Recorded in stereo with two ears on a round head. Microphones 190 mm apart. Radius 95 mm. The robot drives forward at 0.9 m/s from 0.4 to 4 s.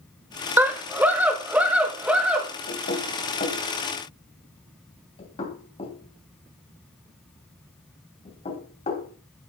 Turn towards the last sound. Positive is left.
turn(degrees=30)  # may be behind; listen again after turning